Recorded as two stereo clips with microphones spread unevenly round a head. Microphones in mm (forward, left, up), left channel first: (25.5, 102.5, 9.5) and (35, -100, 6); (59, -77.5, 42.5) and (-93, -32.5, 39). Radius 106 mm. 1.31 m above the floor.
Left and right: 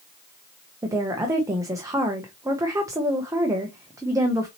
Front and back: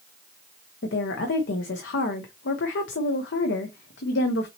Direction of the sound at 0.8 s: 10° right.